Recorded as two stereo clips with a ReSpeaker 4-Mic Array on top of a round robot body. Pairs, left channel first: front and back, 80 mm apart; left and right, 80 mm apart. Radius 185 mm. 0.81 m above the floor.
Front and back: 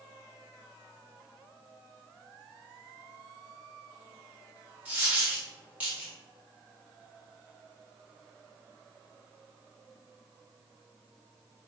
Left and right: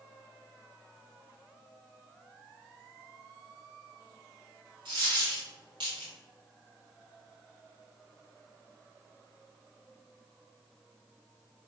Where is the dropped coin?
110° right, 0.9 m.